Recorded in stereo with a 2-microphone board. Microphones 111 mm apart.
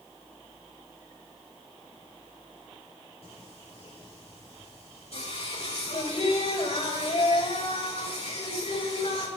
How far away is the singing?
About 6 m.